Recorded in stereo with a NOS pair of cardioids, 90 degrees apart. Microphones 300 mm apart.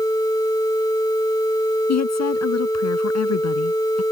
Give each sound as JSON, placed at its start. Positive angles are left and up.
{"t": 1.9, "sound": "a woman speaking", "azimuth_deg": 60}